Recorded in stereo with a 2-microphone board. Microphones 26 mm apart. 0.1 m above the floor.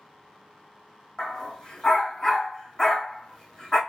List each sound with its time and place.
1.2 s a dog barking: 25° left (ahead or behind), 2.5 m